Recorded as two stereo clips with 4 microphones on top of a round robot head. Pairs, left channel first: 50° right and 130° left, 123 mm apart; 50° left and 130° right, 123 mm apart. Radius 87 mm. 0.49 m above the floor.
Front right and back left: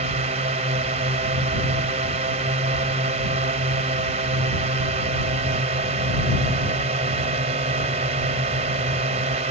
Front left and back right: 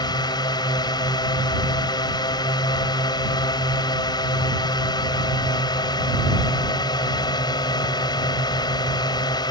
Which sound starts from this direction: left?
A drone, at 0.0 s.